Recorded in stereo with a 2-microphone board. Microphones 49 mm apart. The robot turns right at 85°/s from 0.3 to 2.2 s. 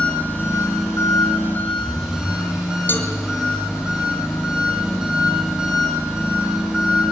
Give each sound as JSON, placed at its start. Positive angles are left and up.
{"t": 0.0, "sound": "an engine running", "azimuth_deg": 35, "distance_m": 7.5}
{"t": 2.9, "sound": "a cowbell", "side_deg": 45, "distance_m": 1.9}